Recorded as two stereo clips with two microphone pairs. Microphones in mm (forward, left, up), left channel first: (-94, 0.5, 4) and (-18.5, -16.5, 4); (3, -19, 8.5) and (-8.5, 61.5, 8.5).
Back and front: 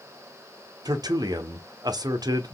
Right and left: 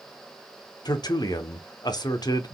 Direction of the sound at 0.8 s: 50° right.